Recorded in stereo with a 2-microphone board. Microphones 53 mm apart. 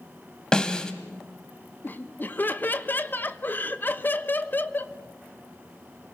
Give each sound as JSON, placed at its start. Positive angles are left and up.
{"t": 0.5, "sound": "a snare drum", "side_deg": 15, "distance_m": 1.5}
{"t": 1.8, "sound": "laughter", "side_deg": 40, "distance_m": 1.1}